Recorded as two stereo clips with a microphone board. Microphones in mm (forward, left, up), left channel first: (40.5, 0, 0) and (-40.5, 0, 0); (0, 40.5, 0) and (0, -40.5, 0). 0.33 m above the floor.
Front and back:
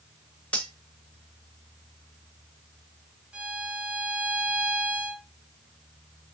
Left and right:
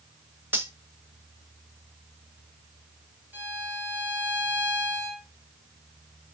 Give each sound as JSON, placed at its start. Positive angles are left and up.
{"t": 0.5, "sound": "cutlery clinking", "azimuth_deg": -55, "distance_m": 0.7}
{"t": 3.3, "sound": "a violin", "azimuth_deg": -115, "distance_m": 0.7}